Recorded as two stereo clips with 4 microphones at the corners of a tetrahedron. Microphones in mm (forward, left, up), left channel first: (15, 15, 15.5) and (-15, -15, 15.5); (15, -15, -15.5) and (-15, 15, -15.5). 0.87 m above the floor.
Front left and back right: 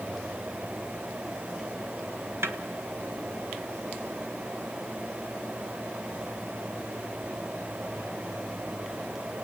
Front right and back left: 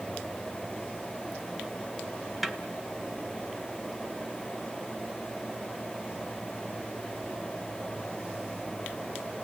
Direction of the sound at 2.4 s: 135° right.